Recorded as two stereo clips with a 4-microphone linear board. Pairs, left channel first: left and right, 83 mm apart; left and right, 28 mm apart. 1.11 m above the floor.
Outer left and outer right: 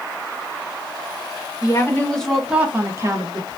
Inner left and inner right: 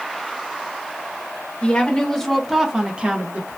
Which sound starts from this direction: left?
A woman speaking, at 1.6 s.